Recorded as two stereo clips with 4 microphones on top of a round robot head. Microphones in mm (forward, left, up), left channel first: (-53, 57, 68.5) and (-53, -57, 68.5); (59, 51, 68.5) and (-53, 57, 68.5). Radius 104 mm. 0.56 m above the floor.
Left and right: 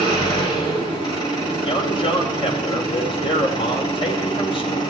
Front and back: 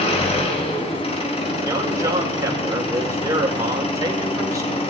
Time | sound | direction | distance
0.0 | an engine running | 30° left | 2.5 m
1.6 | a man speaking | 120° left | 2.5 m